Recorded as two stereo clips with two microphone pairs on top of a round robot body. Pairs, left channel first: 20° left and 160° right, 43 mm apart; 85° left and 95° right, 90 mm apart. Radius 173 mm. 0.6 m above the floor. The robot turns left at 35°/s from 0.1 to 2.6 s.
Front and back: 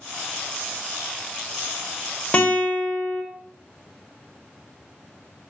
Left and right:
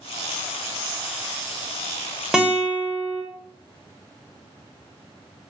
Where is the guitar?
20° left, 0.8 m; by 3.2 s 10° left, 0.8 m.